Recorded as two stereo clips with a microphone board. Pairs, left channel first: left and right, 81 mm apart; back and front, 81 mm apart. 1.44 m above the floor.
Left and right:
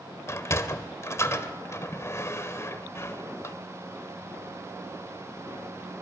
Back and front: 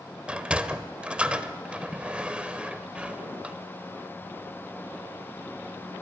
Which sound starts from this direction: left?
A sliding door, at 0.3 s.